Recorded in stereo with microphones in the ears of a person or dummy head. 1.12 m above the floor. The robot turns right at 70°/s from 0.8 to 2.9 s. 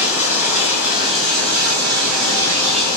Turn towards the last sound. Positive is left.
turn(degrees=-20)